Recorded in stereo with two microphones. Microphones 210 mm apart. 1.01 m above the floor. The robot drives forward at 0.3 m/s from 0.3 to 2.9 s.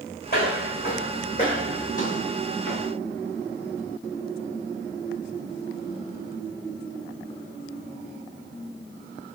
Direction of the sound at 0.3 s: 50° left (ahead or behind).